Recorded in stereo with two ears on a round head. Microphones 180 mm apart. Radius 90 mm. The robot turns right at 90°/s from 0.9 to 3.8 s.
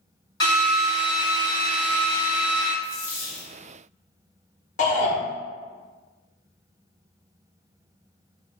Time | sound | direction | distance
0.4 | a drill | 160° left | 1.4 m
2.8 | a dropped coin | 35° right | 1.4 m
4.8 | a shout | 40° left (ahead or behind) | 0.8 m